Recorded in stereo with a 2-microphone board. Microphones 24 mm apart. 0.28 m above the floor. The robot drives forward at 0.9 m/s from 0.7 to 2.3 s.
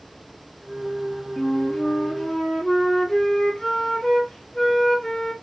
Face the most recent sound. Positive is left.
turn(degrees=20)  # may be behind; listen again after turning